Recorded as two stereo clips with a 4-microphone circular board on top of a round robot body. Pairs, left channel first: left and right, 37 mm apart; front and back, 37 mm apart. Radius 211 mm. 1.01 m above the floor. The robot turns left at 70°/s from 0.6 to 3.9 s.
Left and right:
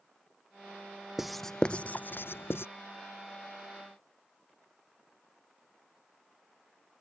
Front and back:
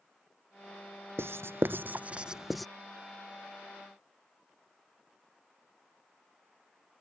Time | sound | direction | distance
1.2 | writing | 170° right | ?